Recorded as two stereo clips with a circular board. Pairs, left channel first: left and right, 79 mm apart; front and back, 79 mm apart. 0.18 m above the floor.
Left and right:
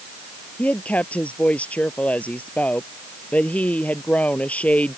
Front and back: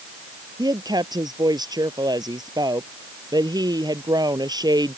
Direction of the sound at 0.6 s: 160° left.